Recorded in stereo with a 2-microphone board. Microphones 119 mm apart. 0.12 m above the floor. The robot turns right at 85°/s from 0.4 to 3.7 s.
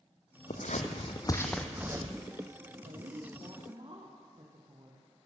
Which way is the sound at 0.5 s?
75° left (ahead or behind).